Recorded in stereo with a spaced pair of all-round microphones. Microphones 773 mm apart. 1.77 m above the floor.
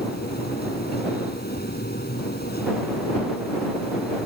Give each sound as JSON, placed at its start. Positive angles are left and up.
{"t": 0.0, "sound": "a machine running", "side_deg": 10}